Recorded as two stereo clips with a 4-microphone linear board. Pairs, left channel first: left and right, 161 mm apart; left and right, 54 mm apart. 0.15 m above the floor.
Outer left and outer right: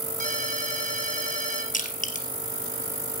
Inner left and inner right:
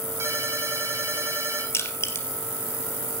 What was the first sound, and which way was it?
A ringtone, 50° right (ahead or behind).